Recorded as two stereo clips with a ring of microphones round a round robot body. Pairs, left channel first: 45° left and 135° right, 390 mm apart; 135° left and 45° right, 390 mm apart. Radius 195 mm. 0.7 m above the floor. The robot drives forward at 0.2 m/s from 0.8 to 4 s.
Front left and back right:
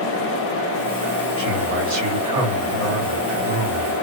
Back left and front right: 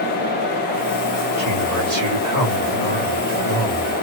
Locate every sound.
1.4 s a man speaking: 90° right, 2 m; by 3.9 s 105° right, 2.5 m